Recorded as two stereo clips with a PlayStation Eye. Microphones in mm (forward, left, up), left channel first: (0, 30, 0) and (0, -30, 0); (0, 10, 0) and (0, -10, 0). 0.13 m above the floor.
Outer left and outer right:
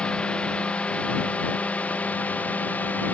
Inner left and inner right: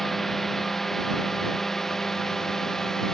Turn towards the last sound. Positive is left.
turn(degrees=25)  # may be behind; listen again after turning